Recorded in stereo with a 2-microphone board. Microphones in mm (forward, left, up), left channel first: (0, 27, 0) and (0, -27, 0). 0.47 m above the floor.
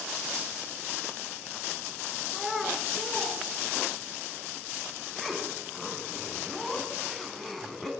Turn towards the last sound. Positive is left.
turn(degrees=5)  # may be behind; listen again after turning